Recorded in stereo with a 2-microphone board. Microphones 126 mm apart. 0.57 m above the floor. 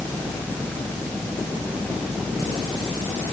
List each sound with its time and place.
Only background noise.